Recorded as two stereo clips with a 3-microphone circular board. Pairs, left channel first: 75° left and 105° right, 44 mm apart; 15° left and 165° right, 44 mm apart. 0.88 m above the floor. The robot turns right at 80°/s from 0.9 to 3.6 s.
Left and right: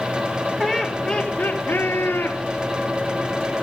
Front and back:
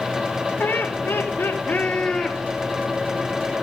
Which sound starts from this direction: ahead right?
Laughter, at 0.6 s.